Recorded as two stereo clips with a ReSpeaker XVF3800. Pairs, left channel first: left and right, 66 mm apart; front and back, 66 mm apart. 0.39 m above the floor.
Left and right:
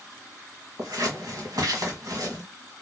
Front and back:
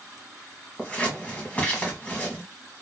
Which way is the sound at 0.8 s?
70° right.